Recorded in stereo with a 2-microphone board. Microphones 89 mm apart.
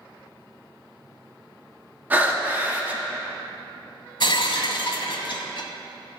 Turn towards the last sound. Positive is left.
turn(degrees=70)  # may be behind; listen again after turning